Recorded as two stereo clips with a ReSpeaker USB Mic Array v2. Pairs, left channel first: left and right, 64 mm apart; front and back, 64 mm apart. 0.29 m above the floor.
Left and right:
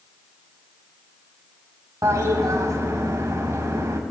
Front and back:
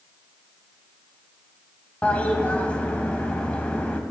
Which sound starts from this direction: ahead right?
A toilet flushing, at 2.0 s.